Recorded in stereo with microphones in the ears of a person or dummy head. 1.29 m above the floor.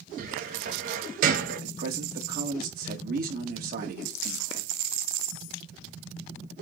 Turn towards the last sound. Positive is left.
turn(degrees=-55)  # may be behind; listen again after turning